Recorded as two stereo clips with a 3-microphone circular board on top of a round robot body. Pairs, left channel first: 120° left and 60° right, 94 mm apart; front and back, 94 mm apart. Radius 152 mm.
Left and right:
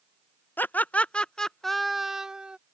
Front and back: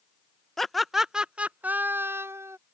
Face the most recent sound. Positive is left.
turn(degrees=-135)